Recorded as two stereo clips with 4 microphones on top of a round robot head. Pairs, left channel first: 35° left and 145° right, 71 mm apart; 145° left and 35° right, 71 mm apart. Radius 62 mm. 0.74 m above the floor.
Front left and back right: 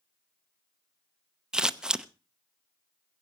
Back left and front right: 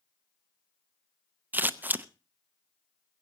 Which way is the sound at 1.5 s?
75° right.